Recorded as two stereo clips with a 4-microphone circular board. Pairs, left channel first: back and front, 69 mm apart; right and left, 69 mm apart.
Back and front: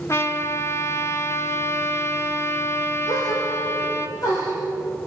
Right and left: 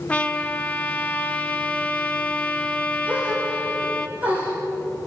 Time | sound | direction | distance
0.1 | a trumpet | 150° right | 1.4 m
3.1 | a gasp | 155° left | 8 m